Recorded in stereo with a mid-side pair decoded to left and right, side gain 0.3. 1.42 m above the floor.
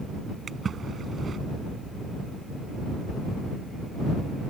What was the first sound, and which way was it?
A splash, 60° right.